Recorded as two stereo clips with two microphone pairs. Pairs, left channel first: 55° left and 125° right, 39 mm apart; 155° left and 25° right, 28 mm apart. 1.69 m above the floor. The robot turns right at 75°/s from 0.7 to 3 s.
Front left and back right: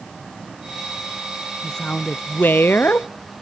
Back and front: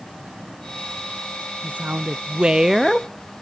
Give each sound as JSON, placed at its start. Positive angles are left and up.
{"t": 1.6, "sound": "a woman speaking", "azimuth_deg": -25, "distance_m": 0.5}